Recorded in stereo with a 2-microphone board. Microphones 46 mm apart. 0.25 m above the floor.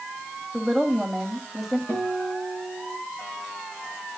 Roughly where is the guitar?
Left.